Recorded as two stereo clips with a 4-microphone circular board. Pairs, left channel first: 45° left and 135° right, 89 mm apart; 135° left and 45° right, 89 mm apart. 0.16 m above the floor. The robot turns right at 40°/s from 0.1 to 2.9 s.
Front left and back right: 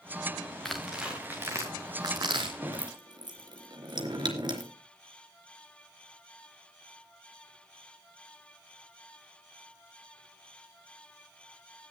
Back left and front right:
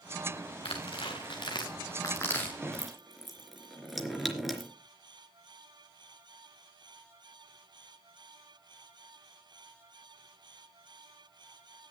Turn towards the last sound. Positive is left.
turn(degrees=-135)